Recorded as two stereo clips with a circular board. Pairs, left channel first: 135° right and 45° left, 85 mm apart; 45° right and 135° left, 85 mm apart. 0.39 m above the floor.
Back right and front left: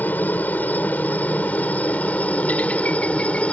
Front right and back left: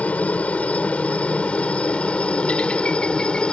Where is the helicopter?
95° right; by 3.5 s 100° right.